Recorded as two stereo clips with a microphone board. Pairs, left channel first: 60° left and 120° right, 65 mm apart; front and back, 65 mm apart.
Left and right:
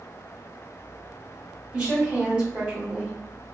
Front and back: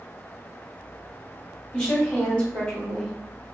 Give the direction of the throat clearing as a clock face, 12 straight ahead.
I don't hear throat clearing.